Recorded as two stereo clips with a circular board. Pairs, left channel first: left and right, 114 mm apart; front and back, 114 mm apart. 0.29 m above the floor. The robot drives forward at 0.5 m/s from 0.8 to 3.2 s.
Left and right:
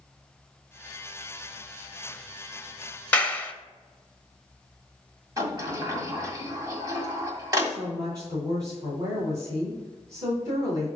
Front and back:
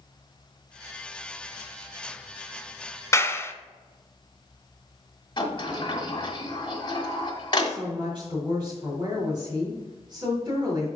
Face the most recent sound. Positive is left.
turn(degrees=-140)